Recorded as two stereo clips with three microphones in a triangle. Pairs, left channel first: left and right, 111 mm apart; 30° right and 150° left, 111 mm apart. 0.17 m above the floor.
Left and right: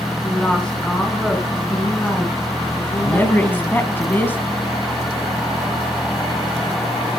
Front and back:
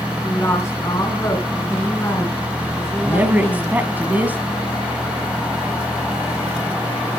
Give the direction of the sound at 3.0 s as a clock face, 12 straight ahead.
8 o'clock.